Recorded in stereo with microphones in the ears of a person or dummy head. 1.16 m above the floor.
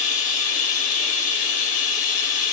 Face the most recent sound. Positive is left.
turn(degrees=40)  # may be behind; listen again after turning